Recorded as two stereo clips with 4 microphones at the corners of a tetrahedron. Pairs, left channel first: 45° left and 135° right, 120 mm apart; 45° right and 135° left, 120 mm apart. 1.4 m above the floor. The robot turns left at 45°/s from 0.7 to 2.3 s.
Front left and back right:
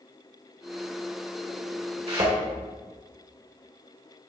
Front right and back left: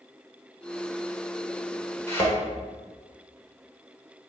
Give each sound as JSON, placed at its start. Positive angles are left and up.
{"t": 2.1, "sound": "a thud", "azimuth_deg": -110, "distance_m": 1.9}